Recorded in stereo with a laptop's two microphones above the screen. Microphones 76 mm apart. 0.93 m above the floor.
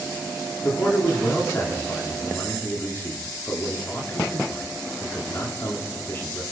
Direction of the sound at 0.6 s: 35° left (ahead or behind).